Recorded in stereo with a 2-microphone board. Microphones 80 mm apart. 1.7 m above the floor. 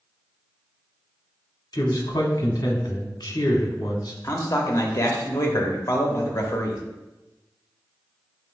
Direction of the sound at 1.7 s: 55° left (ahead or behind).